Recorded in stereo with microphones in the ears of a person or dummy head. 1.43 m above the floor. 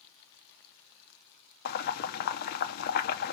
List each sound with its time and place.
1.6 s boiling: 55° left (ahead or behind), 0.8 m